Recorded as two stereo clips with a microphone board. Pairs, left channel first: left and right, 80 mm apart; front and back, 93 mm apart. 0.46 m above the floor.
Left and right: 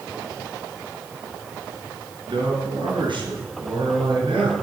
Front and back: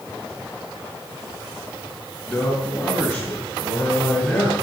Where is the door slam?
No door slam in this recording.